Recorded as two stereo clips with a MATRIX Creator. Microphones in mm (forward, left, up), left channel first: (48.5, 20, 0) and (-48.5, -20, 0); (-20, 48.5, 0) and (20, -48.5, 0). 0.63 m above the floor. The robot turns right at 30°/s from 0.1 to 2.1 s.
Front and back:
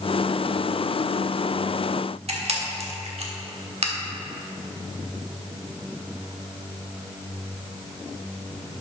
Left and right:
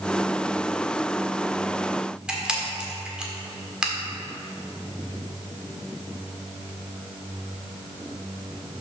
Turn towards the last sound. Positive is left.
turn(degrees=-150)